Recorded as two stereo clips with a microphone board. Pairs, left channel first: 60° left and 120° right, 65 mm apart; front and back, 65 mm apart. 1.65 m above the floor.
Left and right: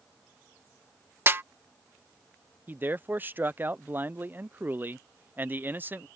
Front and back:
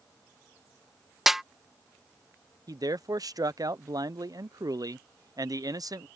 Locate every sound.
1.3 s a snare drum: 95° right
2.7 s a man speaking: straight behind